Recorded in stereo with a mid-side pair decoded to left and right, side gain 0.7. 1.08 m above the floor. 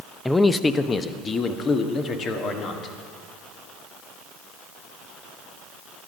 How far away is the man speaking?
About 0.6 m.